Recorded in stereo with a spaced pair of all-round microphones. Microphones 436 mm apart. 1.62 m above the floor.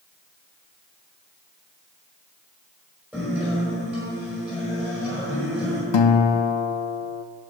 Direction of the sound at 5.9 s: 75° left (ahead or behind).